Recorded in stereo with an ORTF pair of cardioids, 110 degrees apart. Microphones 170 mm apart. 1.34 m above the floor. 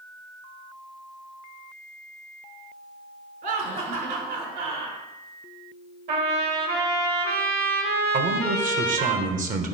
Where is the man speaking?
50° right, 1.5 m.